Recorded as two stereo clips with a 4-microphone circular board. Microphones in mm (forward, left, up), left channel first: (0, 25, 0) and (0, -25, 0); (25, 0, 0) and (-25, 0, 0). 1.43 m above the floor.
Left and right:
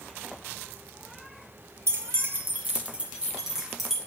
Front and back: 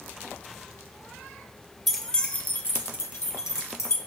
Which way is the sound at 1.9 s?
90° right.